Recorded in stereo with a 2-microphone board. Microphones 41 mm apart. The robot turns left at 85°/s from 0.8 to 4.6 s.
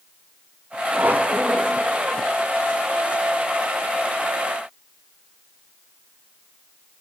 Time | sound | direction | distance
0.9 | a squeak | 90° right | 0.7 m